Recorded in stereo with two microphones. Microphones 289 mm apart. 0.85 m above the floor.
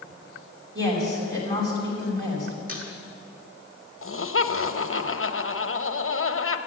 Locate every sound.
0.8 s a woman speaking: 40° right (ahead or behind), 5 m
2.7 s a squeak: 30° right (ahead or behind), 4.5 m
4.0 s laughter: 45° left (ahead or behind), 0.9 m